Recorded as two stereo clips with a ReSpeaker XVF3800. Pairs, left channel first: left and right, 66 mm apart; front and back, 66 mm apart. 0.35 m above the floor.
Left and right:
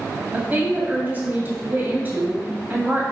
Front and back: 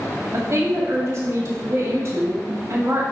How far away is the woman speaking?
About 1.8 m.